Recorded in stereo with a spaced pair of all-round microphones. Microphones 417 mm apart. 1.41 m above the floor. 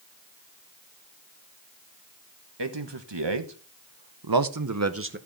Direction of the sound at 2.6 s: 75° right (ahead or behind).